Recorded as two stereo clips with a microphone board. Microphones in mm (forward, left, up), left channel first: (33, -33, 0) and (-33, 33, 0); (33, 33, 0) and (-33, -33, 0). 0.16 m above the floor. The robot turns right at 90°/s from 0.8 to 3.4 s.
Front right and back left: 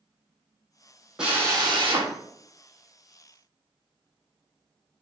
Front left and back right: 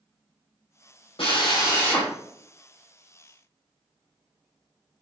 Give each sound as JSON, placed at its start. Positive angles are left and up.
{"t": 1.2, "sound": "a drill", "azimuth_deg": 55, "distance_m": 3.5}